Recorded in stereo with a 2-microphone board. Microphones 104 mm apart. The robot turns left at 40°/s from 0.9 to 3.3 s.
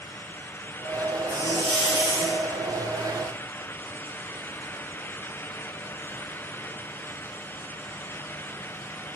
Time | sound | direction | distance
1.3 | a hiss | 130° left | 1.9 m